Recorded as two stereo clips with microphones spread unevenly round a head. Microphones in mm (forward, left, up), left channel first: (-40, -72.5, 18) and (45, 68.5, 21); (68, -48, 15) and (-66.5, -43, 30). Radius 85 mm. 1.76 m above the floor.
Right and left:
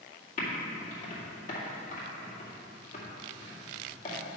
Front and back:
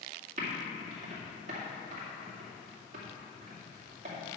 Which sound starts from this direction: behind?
Typing on a keyboard, at 0.4 s.